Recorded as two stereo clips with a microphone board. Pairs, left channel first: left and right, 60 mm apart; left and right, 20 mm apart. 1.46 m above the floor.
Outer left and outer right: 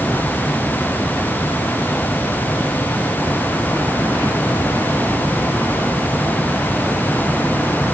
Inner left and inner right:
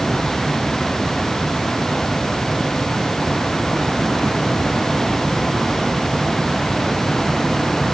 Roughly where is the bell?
I don't hear a bell.